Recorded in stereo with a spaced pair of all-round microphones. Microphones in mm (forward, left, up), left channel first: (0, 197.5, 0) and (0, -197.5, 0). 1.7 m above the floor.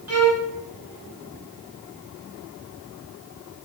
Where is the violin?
40° right (ahead or behind), 1.6 m.